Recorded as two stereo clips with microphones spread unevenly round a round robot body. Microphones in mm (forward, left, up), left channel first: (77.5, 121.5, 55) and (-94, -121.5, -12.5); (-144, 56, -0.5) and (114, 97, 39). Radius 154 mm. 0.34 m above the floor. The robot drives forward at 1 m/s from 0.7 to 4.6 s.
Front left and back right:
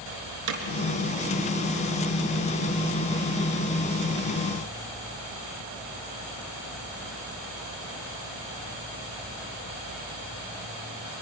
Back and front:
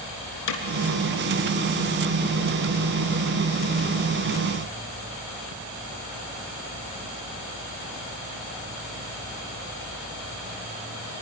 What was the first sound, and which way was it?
Hammering, 160° right.